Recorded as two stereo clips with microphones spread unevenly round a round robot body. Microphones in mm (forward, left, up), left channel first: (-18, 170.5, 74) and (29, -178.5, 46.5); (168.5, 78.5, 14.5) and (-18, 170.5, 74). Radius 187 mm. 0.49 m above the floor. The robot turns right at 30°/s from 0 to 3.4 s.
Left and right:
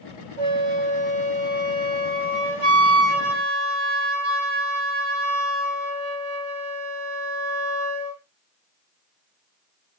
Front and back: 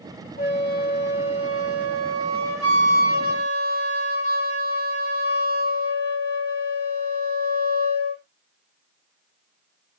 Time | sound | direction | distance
0.4 | a flute | 135° right | 2.5 m